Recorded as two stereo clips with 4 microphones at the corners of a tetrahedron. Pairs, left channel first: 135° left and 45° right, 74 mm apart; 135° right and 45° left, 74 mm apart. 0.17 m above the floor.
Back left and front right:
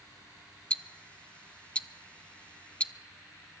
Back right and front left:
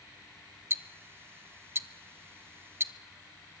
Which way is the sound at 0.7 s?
75° left.